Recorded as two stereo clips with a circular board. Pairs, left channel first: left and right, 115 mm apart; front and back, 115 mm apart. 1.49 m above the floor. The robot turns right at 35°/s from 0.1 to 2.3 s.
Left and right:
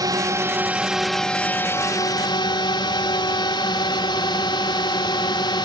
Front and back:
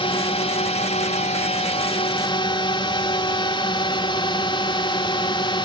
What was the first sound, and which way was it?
A drone, 35° right.